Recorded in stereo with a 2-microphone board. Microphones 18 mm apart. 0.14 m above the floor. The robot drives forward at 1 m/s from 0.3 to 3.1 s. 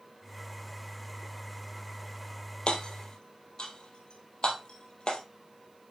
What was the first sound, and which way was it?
Hammering, 70° left (ahead or behind).